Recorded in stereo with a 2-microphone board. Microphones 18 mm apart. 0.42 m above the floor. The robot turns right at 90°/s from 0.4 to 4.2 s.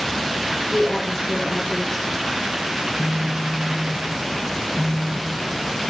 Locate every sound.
0.7 s a woman speaking: 115° left, 3.5 m; by 2.1 s 120° right, 3.5 m
2.8 s a phone buzzing: 20° left, 2.5 m; by 5.9 s 145° left, 2.5 m